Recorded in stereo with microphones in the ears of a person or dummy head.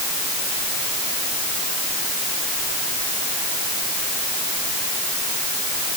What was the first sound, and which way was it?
Only background noise.